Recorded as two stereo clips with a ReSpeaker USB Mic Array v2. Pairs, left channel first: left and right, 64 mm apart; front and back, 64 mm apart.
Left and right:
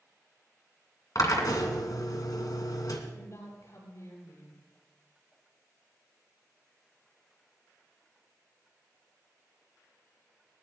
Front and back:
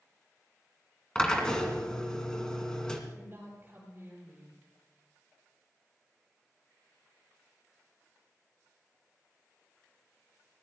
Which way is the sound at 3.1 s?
125° left.